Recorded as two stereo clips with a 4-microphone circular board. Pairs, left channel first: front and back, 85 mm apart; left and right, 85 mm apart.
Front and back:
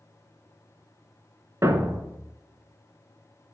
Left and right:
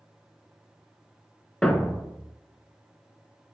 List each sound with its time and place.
1.6 s a thud: 165° left, 0.5 m